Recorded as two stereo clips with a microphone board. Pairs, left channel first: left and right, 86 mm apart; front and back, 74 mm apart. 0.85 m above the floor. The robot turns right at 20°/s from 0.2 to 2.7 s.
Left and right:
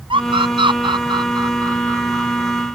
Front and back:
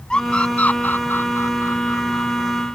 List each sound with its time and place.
0.1 s a scream: 80° right; by 2.7 s 30° right